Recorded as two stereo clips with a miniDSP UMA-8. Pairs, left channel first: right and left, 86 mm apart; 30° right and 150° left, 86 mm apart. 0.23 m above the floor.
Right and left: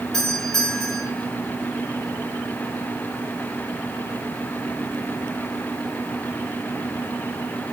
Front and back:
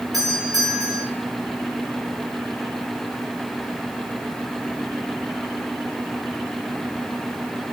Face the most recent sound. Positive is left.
turn(degrees=-175)